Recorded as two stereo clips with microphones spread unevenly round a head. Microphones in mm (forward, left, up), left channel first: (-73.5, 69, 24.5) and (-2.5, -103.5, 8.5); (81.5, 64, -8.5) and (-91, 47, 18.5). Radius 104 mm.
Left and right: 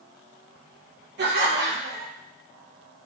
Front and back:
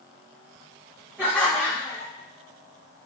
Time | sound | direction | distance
1.2 | laughter | 90° right | 1.2 m